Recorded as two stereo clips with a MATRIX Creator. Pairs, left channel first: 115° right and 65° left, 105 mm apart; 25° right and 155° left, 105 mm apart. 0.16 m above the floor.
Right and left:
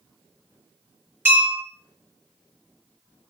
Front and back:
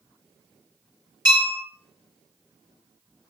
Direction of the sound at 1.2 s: 130° left.